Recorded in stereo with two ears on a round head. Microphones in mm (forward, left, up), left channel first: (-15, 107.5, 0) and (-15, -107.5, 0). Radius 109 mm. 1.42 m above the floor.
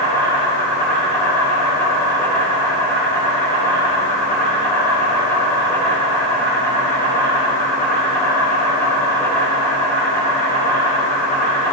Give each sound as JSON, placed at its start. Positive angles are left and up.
{"t": 0.0, "sound": "an insect", "side_deg": 10, "distance_m": 3.0}